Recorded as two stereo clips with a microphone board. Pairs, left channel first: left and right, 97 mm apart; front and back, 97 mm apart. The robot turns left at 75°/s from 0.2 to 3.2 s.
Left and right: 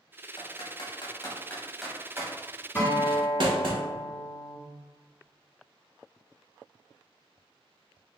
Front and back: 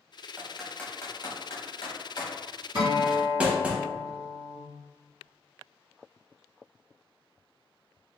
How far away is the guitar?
About 1.2 m.